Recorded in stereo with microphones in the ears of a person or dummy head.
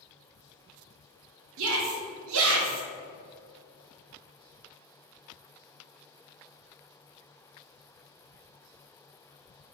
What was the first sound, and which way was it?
A shout, 75° right (ahead or behind).